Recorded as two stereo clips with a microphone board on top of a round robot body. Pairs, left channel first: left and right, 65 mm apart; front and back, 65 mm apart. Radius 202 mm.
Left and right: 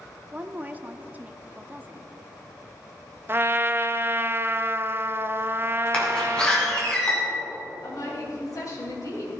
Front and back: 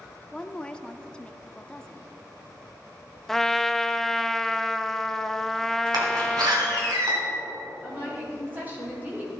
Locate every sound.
0.3 s a woman speaking: 60° right, 0.9 m
3.3 s a trumpet: 80° right, 0.7 m
5.9 s a door slam: 165° left, 2.5 m
7.8 s a woman speaking: 120° left, 3.5 m